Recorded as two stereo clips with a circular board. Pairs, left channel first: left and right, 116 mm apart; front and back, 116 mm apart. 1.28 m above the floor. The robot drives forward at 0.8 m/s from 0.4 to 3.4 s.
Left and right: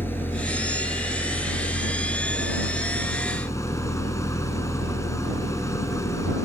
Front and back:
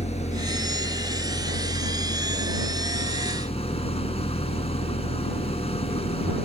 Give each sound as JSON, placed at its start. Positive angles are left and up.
{"t": 0.0, "sound": "an engine running", "azimuth_deg": 15}